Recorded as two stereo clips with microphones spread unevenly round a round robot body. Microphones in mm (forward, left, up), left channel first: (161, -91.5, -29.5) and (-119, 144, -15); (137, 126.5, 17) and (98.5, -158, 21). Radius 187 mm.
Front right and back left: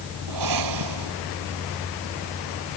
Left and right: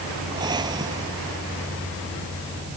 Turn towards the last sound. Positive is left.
turn(degrees=180)